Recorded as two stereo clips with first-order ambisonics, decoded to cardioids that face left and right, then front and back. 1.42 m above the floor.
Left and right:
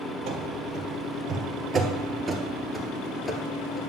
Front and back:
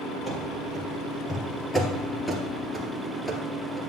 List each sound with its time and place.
0.3 s running footsteps: 70° right, 2.0 m; by 3.9 s 95° left, 1.4 m